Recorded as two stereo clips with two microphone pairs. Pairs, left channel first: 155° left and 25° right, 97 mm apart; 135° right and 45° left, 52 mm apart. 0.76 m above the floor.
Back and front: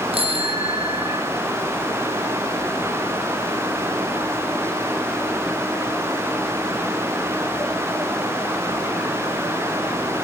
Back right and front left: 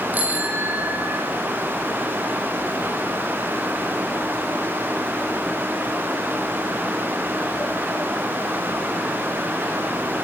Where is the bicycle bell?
15° right, 4.5 m.